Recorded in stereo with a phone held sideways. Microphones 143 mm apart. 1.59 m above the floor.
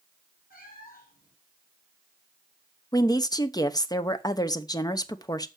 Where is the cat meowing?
80° left, 5.5 m.